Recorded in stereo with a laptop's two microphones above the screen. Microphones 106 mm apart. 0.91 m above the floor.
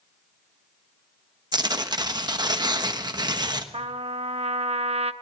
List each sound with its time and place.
1.5 s tearing paper: 40° right (ahead or behind), 1.1 m
3.7 s a trumpet: 75° right (ahead or behind), 0.8 m